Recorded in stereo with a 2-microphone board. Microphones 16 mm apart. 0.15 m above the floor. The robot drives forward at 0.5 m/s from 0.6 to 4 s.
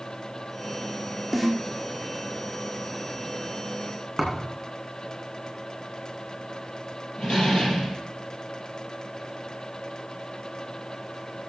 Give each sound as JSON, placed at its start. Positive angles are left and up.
{"t": 1.3, "sound": "a snare drum", "side_deg": 5, "distance_m": 2.5}
{"t": 4.2, "sound": "a thud", "side_deg": 5, "distance_m": 3.5}
{"t": 7.2, "sound": "a door slam", "side_deg": 55, "distance_m": 3.5}